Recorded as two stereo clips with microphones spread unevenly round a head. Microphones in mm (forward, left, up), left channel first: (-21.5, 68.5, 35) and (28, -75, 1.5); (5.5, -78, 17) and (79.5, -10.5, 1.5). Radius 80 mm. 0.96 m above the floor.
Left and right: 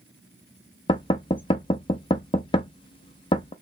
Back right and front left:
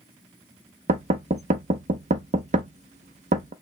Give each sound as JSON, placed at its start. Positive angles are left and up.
{"t": 0.9, "sound": "knocking", "azimuth_deg": 50, "distance_m": 0.6}